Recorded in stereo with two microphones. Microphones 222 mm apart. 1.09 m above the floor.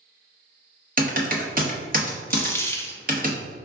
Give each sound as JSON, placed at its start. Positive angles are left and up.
{"t": 1.0, "sound": "typing on a keyboard", "side_deg": -40, "distance_m": 0.8}
{"t": 2.3, "sound": "a dropped coin", "side_deg": 10, "distance_m": 0.5}